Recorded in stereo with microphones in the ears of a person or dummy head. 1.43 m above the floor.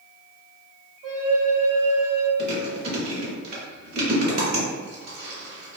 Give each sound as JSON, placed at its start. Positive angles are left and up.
{"t": 1.0, "sound": "a flute", "side_deg": -80, "distance_m": 1.0}
{"t": 2.4, "sound": "chewing", "side_deg": -50, "distance_m": 1.8}